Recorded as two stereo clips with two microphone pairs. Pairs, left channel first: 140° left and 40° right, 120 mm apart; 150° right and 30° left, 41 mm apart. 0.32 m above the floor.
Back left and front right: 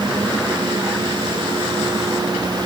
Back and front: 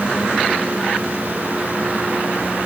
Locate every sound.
Only background noise.